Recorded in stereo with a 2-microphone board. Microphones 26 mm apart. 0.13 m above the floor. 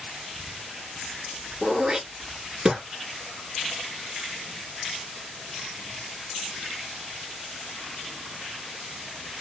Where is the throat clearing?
25° right (ahead or behind), 0.9 m.